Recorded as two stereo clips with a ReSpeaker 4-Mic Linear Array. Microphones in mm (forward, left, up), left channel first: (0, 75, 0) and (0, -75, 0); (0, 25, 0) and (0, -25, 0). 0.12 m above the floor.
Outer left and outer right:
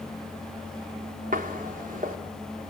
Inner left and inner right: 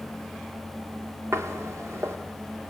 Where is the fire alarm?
No fire alarm in this recording.